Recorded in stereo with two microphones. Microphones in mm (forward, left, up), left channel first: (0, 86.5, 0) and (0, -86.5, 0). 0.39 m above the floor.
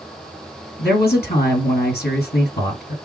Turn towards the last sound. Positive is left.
turn(degrees=70)  # may be behind; listen again after turning